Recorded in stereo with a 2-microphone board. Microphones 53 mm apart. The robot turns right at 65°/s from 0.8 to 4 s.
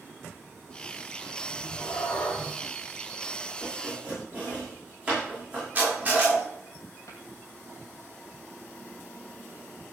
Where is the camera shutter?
25° right (ahead or behind), 7 m.